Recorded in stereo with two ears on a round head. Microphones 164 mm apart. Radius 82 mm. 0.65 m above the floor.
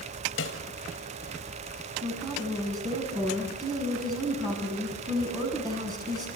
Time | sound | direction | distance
0.4 | a snare drum | 65° left (ahead or behind) | 4.5 m
2.0 | a woman speaking | 20° right (ahead or behind) | 7.5 m